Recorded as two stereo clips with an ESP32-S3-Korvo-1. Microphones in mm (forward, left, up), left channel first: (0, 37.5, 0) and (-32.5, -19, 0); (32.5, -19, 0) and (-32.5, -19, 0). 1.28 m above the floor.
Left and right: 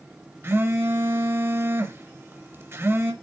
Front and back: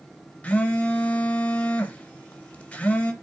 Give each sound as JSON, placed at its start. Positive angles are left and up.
{"t": 0.4, "sound": "a phone buzzing", "azimuth_deg": -70, "distance_m": 1.4}